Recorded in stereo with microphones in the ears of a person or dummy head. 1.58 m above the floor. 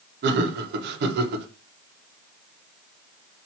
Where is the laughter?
60° right (ahead or behind), 0.9 m.